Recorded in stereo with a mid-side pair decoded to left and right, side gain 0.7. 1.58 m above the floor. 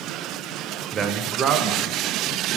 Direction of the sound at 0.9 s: 30° right.